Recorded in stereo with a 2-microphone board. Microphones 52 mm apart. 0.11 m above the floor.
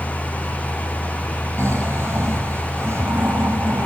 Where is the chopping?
I don't hear chopping.